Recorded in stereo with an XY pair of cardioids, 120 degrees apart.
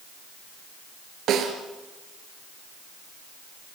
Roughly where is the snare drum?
Ahead right.